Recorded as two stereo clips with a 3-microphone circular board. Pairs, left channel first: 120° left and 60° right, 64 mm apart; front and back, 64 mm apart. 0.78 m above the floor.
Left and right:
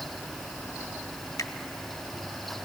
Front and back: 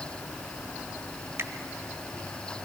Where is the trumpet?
I don't hear a trumpet.